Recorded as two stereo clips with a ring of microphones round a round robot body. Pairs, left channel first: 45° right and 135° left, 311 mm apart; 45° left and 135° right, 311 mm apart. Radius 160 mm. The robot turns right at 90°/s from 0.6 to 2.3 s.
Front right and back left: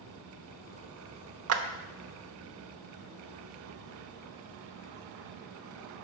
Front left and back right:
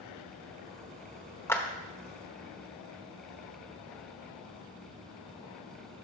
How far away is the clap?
About 0.8 m.